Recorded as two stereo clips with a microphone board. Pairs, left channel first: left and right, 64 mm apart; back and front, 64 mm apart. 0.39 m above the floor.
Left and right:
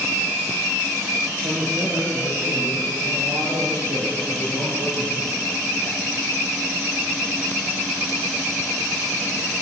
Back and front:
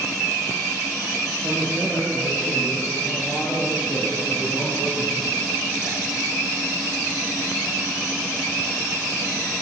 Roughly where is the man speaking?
Ahead right.